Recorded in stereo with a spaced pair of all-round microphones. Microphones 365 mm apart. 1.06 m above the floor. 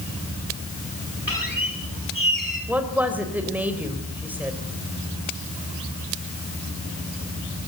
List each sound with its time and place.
1.3 s a squeak: 60° left (ahead or behind), 8.5 m
2.7 s a woman speaking: 5° right (ahead or behind), 4 m